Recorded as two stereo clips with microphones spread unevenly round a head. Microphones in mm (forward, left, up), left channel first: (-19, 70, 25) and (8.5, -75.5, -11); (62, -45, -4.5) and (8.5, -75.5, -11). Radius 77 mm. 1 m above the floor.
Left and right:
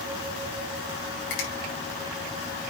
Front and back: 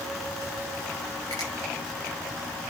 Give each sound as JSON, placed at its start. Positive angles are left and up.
{"t": 1.3, "sound": "a finger snap", "azimuth_deg": 100, "distance_m": 5.0}